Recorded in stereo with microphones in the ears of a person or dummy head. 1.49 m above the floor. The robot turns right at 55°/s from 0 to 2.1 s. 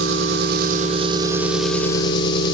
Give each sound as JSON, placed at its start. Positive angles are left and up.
{"t": 0.0, "sound": "an engine running", "azimuth_deg": -95, "distance_m": 1.1}